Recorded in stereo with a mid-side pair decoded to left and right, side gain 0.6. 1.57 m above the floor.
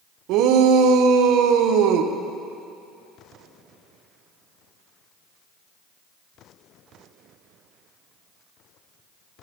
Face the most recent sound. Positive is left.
turn(degrees=-70)